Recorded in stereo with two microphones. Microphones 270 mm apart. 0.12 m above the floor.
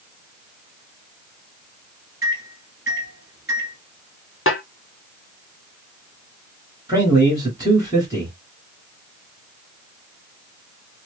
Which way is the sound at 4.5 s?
50° left (ahead or behind).